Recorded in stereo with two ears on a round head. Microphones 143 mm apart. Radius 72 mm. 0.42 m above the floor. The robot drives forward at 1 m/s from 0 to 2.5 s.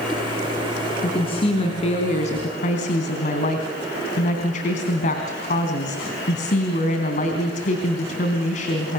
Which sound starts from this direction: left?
A woman speaking, at 1.0 s.